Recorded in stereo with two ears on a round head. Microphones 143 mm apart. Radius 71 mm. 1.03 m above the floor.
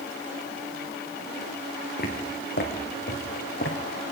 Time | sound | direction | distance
2.0 | footsteps | 60° left (ahead or behind) | 3.5 m